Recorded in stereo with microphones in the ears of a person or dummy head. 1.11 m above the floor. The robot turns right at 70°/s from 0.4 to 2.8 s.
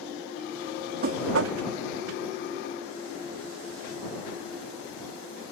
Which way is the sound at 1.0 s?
130° right.